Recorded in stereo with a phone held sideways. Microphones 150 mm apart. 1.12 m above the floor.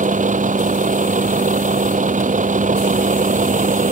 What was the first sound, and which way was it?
A vehicle, 55° right (ahead or behind).